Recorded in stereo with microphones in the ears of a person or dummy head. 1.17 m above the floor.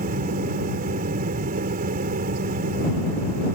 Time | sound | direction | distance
0.0 | a fan | 50° right (ahead or behind) | ?